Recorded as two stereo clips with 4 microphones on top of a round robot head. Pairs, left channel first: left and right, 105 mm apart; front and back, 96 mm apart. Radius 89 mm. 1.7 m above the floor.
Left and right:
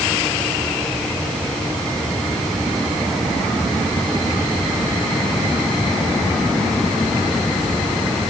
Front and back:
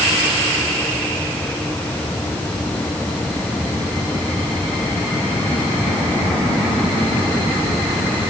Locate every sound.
Only background noise.